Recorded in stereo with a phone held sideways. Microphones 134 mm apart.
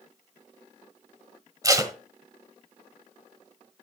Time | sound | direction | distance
1.6 | tape being pulled | 25° right (ahead or behind) | 1.1 m